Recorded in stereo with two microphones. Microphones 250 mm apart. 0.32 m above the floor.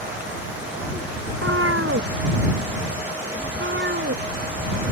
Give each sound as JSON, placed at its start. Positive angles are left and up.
{"t": 1.3, "sound": "a cat meowing", "side_deg": -60}